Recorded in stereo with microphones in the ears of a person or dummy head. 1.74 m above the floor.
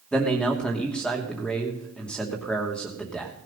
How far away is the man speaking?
About 2.5 m.